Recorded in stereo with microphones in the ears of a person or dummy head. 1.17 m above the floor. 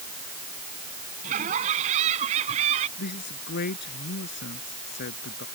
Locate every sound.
1.2 s laughter: 40° right (ahead or behind); by 2.9 s 35° right (ahead or behind)
3.0 s a man speaking: 55° left (ahead or behind)